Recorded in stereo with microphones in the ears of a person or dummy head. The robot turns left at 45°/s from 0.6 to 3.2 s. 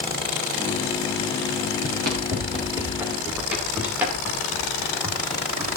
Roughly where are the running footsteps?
Right.